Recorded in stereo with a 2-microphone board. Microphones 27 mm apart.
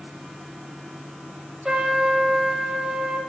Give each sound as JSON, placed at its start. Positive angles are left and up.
{"t": 1.6, "sound": "a trumpet", "side_deg": -25, "distance_m": 1.0}